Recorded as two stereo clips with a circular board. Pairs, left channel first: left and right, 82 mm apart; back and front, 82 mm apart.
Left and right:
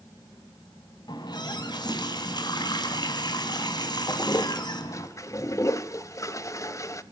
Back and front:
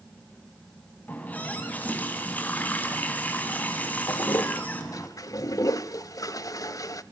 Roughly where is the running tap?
Left.